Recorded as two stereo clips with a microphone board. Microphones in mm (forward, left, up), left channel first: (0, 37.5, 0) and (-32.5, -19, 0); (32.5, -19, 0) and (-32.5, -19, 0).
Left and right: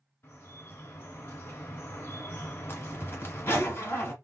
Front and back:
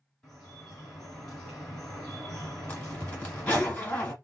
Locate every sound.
0.2 s dripping: 85° left, 1.9 m
2.7 s a zipper: 60° left, 1.5 m